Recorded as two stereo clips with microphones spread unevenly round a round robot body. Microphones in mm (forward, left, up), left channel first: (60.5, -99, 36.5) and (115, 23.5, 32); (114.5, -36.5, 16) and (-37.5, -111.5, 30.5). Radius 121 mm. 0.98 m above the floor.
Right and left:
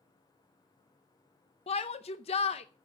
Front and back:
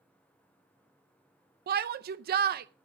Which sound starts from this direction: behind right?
A shout, at 1.7 s.